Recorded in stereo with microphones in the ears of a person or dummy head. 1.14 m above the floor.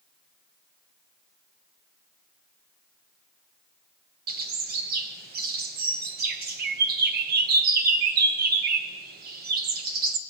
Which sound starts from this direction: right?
A bird, at 4.3 s.